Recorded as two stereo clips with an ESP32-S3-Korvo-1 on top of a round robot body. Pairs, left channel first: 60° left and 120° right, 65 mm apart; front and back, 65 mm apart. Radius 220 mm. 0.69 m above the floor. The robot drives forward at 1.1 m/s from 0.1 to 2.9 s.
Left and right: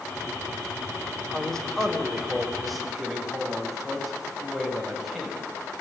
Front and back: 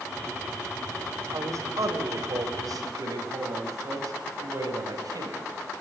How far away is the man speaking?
About 3.5 m.